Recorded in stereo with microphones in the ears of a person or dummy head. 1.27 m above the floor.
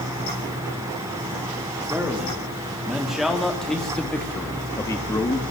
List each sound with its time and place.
1.9 s a man speaking: 10° right (ahead or behind), 4 m; by 5.4 s 15° left (ahead or behind), 2.5 m